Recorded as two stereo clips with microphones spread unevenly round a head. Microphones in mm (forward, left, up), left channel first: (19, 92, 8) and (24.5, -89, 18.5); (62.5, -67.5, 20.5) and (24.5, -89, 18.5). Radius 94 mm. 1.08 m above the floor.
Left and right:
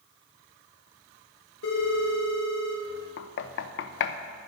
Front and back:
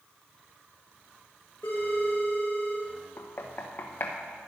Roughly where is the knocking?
Left.